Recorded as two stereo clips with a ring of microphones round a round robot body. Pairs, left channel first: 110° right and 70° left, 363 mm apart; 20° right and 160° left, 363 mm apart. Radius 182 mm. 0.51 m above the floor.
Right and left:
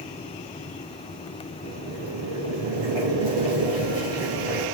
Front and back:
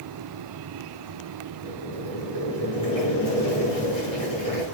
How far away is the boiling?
About 5 m.